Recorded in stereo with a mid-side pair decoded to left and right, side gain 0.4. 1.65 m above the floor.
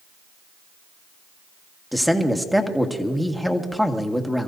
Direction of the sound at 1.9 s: Straight ahead.